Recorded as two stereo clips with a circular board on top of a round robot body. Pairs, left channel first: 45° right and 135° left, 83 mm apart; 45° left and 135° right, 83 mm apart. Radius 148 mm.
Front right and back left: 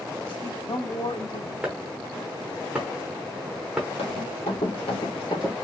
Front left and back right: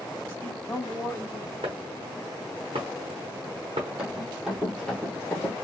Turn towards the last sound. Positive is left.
turn(degrees=15)